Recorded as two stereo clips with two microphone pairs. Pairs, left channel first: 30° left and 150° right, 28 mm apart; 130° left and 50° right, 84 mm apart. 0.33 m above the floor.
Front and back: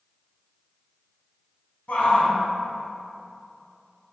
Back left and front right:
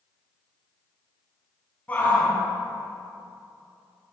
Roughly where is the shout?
Ahead left.